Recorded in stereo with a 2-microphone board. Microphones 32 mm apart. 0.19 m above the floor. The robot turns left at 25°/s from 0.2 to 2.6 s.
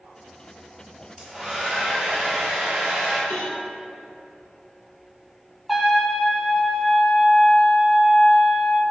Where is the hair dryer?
15° left, 3 m; by 3.2 s 25° right, 3 m.